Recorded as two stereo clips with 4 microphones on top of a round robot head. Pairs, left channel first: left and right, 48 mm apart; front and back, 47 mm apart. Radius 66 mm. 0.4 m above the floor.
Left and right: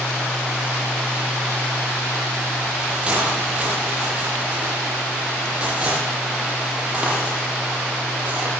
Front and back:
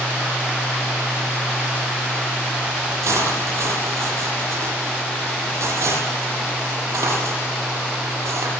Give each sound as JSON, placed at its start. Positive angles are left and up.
{"t": 3.0, "sound": "cutlery clinking", "azimuth_deg": -160, "distance_m": 9.0}